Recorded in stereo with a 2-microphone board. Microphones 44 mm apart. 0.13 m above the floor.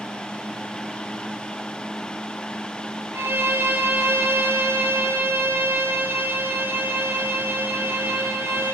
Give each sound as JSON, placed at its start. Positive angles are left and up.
{"t": 3.1, "sound": "a violin", "side_deg": -70, "distance_m": 1.1}